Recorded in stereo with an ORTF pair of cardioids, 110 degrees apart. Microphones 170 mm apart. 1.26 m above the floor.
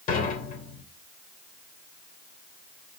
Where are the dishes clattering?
55° left, 3.5 m.